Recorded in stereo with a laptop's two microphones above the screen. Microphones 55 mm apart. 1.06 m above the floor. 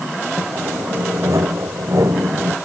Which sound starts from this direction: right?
Sawing, at 0.4 s.